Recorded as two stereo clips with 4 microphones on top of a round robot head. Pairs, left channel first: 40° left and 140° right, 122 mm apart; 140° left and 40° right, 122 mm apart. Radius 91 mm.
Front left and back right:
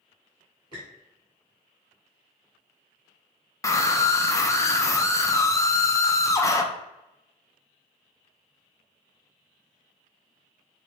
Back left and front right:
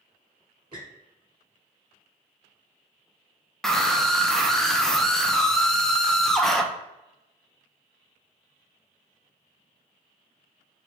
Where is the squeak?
90° right, 1.8 m.